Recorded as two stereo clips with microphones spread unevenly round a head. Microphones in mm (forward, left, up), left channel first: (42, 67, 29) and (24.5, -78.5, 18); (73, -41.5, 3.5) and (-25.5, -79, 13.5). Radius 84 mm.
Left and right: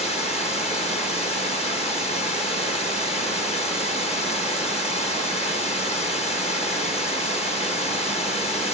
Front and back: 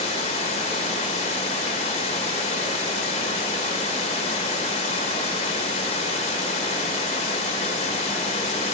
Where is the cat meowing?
I don't hear a cat meowing.